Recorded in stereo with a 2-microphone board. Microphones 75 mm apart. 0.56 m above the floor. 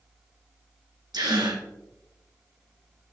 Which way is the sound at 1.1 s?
80° right.